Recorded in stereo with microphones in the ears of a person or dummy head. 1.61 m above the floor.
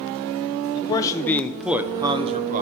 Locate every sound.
0.8 s a man speaking: 30° left (ahead or behind), 0.9 m; by 2.6 s 40° right (ahead or behind), 0.9 m